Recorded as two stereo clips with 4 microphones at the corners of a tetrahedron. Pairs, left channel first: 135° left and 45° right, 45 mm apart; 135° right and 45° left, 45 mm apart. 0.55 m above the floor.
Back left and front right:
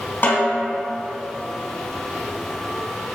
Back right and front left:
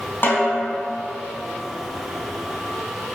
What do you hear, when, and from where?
0.2 s a snare drum: 175° right, 2 m